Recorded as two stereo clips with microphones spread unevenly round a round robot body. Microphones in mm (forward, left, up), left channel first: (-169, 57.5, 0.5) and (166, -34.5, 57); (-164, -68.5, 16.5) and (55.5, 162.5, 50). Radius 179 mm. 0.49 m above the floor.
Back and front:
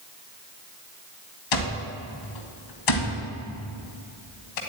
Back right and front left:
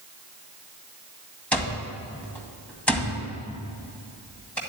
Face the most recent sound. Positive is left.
turn(degrees=140)